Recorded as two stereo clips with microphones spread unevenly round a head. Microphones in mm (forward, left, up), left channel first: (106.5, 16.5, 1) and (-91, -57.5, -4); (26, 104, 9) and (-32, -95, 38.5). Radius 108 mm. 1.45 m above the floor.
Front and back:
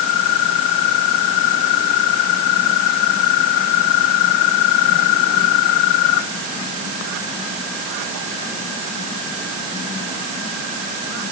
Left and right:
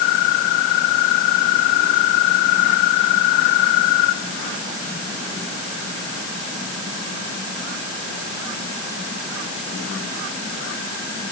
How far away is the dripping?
I don't hear dripping.